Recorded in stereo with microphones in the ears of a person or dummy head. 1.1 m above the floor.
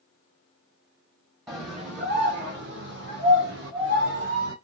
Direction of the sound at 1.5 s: 15° right (ahead or behind).